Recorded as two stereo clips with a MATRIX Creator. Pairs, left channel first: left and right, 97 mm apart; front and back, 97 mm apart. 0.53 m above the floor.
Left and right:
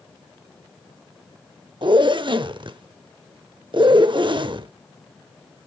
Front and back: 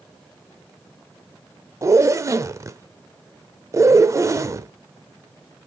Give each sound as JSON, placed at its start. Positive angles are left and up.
{"t": 1.8, "sound": "a zipper", "azimuth_deg": -125, "distance_m": 0.5}